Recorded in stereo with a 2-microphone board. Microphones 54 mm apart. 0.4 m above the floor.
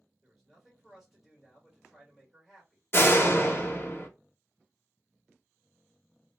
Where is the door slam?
45° left (ahead or behind), 0.6 m.